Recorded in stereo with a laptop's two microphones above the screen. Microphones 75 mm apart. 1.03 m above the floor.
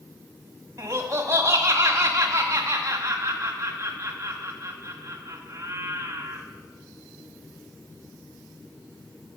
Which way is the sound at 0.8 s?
40° right (ahead or behind).